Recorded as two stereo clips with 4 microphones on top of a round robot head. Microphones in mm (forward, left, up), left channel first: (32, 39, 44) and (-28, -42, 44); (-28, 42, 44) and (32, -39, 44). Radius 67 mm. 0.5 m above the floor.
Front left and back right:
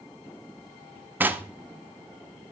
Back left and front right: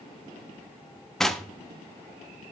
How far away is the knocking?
About 0.9 m.